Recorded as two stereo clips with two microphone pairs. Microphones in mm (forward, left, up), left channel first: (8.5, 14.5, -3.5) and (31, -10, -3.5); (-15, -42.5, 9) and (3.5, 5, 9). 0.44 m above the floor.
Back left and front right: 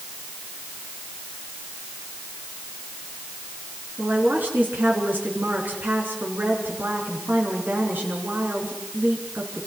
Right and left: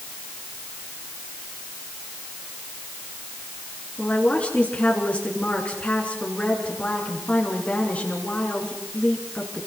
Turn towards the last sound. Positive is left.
turn(degrees=-50)